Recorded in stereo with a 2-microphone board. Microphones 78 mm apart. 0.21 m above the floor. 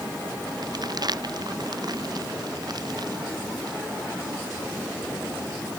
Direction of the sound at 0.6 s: 55° right (ahead or behind).